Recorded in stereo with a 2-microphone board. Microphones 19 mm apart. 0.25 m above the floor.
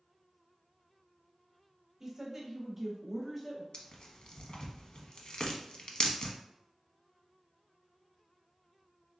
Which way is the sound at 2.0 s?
30° right (ahead or behind).